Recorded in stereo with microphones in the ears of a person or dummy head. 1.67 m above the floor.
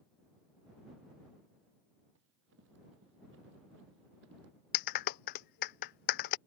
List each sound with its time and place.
2.1 s running footsteps: 70° right (ahead or behind)
4.7 s a clap: 50° left (ahead or behind)